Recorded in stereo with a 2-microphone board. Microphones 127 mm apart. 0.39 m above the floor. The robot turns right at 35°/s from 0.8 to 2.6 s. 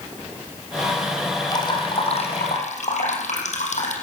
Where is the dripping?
30° left, 5.5 m; by 3.9 s 70° left, 5.5 m.